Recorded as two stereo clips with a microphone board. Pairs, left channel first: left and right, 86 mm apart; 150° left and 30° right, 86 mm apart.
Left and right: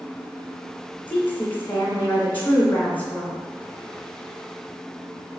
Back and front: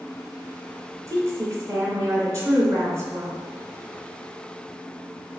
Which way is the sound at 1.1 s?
20° left.